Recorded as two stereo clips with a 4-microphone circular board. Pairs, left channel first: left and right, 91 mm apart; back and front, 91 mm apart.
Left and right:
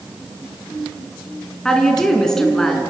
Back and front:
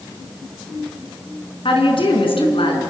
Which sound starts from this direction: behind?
A woman speaking, at 1.6 s.